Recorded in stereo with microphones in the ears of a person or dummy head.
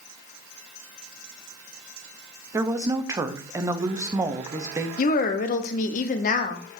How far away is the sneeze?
I don't hear a sneeze.